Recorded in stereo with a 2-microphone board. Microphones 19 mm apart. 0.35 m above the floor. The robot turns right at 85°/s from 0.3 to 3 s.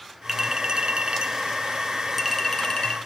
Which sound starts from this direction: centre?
A clink, at 0.3 s.